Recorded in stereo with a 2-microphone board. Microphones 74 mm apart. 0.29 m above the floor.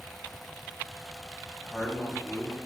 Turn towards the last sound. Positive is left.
turn(degrees=5)  # may be behind; listen again after turning